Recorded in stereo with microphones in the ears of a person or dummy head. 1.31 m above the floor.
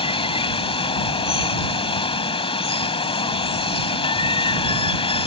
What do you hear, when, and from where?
0.0 s running water: 35° left (ahead or behind)